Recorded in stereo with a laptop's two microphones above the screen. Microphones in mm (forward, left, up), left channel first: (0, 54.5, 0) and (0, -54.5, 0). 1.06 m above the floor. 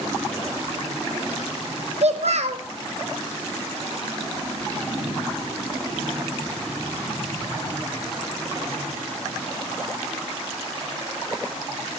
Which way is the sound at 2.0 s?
65° right (ahead or behind).